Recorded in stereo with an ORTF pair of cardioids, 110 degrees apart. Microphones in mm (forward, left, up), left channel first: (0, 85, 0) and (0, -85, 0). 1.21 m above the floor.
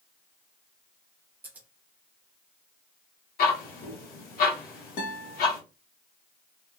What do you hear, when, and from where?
1.4 s scissors: 10° right, 0.9 m
3.4 s ticking: 70° left, 1.3 m
5.0 s a guitar: 65° left, 1.2 m